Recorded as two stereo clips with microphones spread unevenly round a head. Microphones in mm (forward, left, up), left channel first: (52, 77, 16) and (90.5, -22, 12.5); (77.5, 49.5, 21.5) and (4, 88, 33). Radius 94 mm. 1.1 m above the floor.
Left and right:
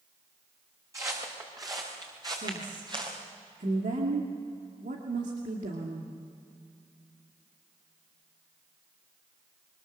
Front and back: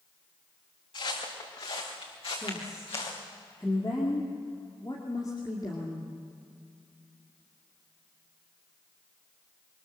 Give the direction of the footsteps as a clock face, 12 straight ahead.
12 o'clock.